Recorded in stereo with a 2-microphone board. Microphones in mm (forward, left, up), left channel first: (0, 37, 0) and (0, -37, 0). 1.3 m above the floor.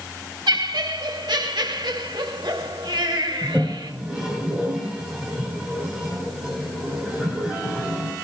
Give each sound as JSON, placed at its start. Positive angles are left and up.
{"t": 0.5, "sound": "laughter", "side_deg": -85, "distance_m": 1.9}
{"t": 3.4, "sound": "a toilet flushing", "side_deg": -10, "distance_m": 7.0}